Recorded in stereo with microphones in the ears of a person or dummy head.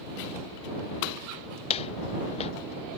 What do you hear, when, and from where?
1.7 s footsteps: 30° left (ahead or behind)